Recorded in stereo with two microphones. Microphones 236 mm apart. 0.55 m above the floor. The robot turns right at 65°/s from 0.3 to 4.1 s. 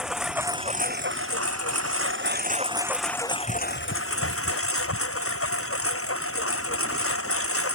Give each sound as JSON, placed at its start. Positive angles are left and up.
{"t": 0.0, "sound": "a lawn mower", "azimuth_deg": -175}